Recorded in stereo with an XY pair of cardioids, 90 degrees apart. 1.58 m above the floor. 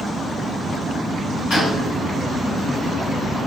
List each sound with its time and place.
1.5 s a gunshot: 70° left, 1.6 m